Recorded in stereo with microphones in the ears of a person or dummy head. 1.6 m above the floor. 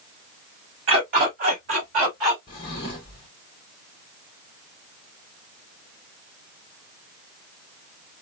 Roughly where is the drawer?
Left.